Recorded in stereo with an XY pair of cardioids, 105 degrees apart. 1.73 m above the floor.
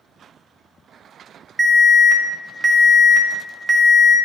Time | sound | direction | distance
1.6 | an alarm | 10° right | 2 m